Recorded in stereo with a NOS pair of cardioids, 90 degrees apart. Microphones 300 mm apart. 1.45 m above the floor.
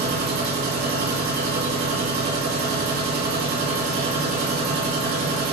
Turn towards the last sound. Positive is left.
turn(degrees=-65)